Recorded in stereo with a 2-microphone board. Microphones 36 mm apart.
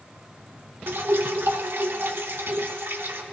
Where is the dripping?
80° right, 0.9 m.